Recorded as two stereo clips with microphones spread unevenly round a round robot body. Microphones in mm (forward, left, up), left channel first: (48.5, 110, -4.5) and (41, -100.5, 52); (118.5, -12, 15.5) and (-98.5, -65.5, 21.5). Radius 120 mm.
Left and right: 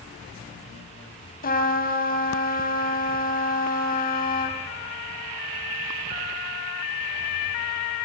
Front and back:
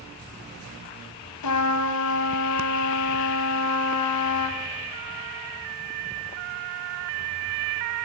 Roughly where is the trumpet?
Ahead left.